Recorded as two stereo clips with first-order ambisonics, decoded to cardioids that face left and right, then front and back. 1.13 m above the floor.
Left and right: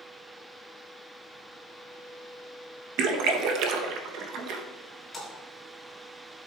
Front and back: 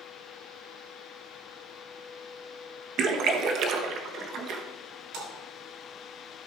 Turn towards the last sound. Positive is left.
turn(degrees=175)